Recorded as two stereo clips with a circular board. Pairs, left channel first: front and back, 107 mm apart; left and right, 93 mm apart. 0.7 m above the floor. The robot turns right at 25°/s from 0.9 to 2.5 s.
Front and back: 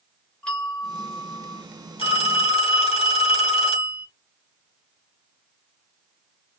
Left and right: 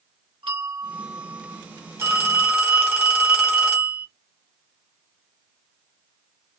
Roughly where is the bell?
Right.